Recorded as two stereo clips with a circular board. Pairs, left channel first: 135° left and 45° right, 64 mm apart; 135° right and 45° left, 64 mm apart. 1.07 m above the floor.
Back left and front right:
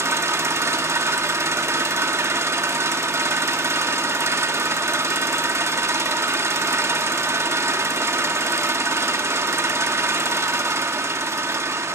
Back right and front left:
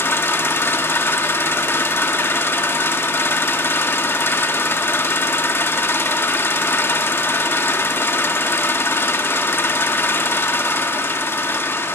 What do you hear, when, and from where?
0.0 s an engine running: 85° right, 1.1 m